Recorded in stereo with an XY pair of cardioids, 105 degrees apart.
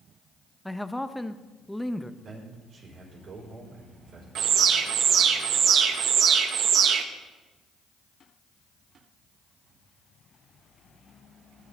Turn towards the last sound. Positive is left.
turn(degrees=-70)